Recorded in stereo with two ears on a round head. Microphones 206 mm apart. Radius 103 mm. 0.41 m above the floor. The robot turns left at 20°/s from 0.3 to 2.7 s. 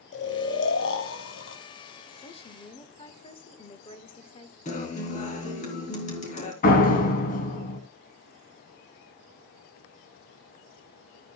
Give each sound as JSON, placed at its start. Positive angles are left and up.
{"t": 0.1, "sound": "snoring", "side_deg": 55, "distance_m": 2.5}
{"t": 2.2, "sound": "a woman speaking", "side_deg": 25, "distance_m": 1.4}
{"t": 4.7, "sound": "a guitar", "side_deg": 35, "distance_m": 3.5}
{"t": 6.6, "sound": "a door slam", "side_deg": 40, "distance_m": 3.0}